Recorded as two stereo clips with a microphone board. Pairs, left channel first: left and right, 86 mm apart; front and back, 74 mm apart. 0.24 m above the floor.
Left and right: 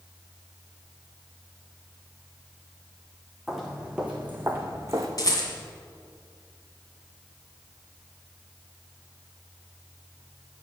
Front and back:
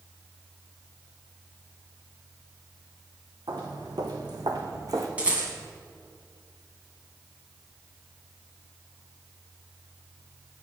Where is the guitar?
I don't hear a guitar.